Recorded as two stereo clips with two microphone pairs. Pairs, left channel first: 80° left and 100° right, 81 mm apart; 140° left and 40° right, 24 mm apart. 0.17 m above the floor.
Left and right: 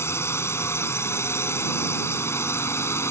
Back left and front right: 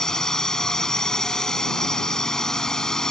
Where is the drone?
95° left.